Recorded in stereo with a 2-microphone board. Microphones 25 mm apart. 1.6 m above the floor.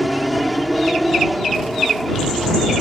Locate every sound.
0.0 s an aircraft: centre (ahead or behind)